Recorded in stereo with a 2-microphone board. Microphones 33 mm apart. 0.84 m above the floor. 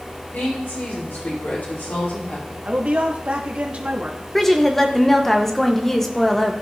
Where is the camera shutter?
I don't hear a camera shutter.